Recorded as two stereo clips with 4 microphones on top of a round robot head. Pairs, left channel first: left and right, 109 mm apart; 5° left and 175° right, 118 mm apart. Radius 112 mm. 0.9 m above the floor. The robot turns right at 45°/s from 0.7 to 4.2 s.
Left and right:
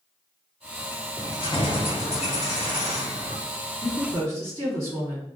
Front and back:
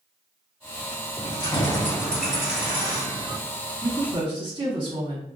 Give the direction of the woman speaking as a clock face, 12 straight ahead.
8 o'clock.